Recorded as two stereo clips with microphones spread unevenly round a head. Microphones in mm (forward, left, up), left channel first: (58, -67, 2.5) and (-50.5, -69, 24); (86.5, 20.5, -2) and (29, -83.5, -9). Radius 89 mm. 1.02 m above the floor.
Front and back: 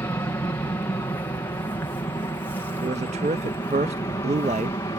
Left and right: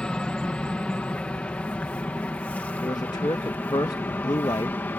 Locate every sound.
0.0 s an aircraft: 15° right; by 5.0 s straight ahead
2.8 s a man speaking: 130° left